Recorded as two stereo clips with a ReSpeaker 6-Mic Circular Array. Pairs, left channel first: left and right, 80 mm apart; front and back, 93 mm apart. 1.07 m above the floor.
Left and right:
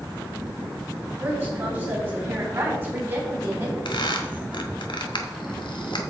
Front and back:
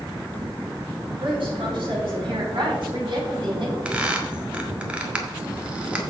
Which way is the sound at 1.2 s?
155° right.